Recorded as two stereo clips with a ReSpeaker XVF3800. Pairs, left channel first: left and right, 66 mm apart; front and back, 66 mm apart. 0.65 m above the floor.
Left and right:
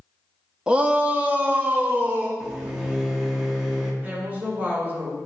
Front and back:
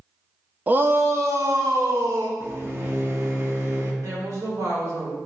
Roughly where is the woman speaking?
Behind right.